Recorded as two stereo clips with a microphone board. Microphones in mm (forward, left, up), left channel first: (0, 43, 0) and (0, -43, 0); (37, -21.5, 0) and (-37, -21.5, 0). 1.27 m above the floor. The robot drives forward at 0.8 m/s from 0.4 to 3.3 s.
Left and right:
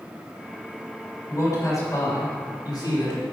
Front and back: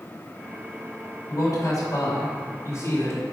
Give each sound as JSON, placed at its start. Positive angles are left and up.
{"t": 1.3, "sound": "a man speaking", "azimuth_deg": 35, "distance_m": 4.0}